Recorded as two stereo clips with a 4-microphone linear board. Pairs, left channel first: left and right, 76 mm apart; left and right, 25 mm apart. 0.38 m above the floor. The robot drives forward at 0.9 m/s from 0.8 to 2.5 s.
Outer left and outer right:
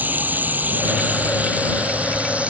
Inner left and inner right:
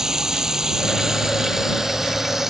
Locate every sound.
0.0 s running water: 20° right (ahead or behind); by 2.5 s 15° right (ahead or behind)